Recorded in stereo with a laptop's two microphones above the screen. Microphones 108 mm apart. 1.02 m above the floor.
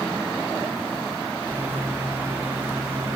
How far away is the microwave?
About 1.6 m.